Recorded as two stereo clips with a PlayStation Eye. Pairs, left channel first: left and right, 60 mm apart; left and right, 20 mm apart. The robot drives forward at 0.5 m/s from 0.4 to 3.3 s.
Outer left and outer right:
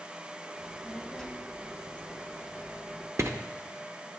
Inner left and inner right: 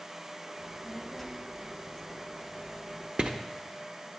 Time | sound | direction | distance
0.6 | a child speaking | 10° left (ahead or behind) | 1.2 m
3.2 | writing | 50° right (ahead or behind) | 0.5 m